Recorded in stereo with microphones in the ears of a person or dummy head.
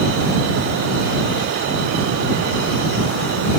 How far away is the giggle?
I don't hear a giggle.